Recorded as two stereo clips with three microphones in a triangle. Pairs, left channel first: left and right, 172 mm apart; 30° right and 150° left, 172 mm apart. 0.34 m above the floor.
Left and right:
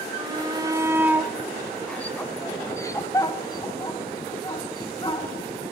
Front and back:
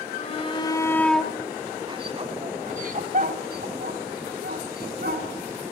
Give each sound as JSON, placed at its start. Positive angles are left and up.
{"t": 0.2, "sound": "a shout", "azimuth_deg": -45, "distance_m": 1.3}